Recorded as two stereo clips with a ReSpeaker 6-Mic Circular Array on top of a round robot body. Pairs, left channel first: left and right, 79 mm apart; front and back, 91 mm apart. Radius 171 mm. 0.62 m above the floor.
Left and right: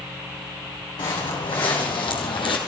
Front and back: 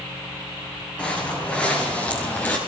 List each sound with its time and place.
1.0 s footsteps: 75° left, 3.5 m